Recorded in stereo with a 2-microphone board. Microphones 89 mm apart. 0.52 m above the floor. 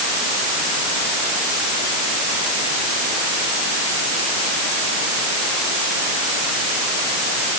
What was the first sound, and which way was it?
Only background noise.